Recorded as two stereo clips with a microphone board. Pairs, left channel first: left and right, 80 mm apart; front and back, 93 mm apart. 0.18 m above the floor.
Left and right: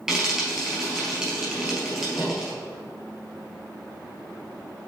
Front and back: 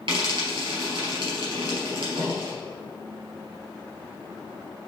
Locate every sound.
0.1 s frying: 170° right, 2.5 m